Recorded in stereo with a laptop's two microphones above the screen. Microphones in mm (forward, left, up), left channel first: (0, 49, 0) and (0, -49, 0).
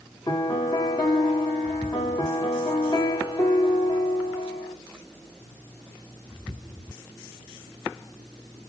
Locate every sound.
0.3 s a piano: 50° left (ahead or behind), 1.8 m